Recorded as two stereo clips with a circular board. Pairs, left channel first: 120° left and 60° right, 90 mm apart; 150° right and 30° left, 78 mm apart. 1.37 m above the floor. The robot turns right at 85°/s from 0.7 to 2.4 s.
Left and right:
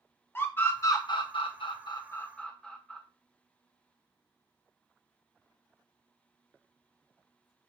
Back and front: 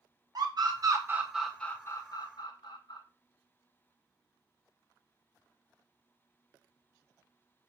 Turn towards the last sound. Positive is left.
turn(degrees=-160)